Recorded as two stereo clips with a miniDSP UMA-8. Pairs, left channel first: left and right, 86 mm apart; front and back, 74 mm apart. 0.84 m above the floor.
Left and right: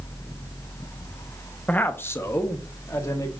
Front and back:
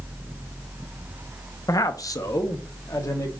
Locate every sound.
1.7 s a man speaking: 20° left, 0.5 m; by 3.3 s 40° left, 1.3 m